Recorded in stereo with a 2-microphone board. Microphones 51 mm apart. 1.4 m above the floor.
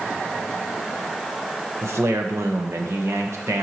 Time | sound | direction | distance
1.8 | a man speaking | 55° right (ahead or behind) | 1.2 m